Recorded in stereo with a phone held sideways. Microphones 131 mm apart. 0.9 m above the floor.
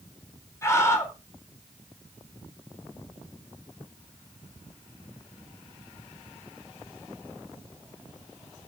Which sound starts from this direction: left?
A scream, at 0.6 s.